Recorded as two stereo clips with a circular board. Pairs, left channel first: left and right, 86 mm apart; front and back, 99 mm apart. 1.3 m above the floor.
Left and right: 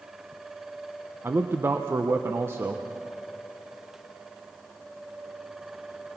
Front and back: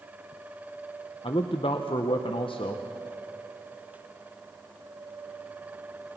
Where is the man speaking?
25° right, 0.8 m.